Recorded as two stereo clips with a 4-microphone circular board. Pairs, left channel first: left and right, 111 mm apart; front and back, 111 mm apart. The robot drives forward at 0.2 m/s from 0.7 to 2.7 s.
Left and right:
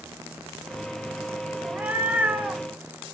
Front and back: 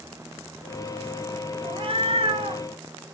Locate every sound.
1.6 s a cat meowing: 160° right, 0.5 m; by 2.6 s 165° right, 0.7 m